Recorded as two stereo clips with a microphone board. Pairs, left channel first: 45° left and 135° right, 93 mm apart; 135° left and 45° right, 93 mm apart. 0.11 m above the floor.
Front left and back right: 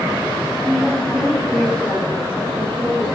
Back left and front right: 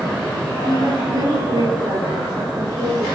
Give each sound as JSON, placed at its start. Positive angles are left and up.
{"t": 0.6, "sound": "a woman speaking", "azimuth_deg": -45, "distance_m": 2.0}